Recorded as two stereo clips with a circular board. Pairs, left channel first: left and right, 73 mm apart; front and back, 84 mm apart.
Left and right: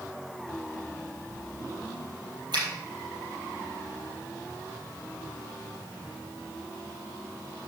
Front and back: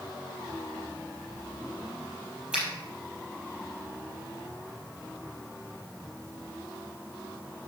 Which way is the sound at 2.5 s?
100° right.